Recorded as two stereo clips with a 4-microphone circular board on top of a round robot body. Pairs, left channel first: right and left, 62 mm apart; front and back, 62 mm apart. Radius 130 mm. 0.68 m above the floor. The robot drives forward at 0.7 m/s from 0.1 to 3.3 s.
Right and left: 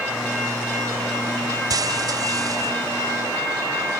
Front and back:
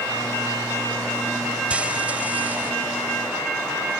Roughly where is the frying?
Left.